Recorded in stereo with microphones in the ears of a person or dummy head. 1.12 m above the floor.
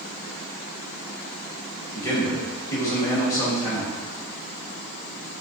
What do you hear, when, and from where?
1.9 s a man speaking: 10° left (ahead or behind), 1.1 m